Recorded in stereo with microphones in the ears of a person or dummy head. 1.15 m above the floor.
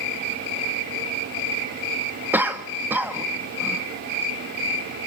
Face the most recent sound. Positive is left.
turn(degrees=-15)  # may be behind; listen again after turning